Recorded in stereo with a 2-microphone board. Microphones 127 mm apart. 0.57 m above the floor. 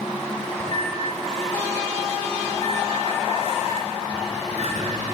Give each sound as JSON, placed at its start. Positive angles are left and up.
{"t": 0.6, "sound": "a microwave", "side_deg": -60, "distance_m": 5.0}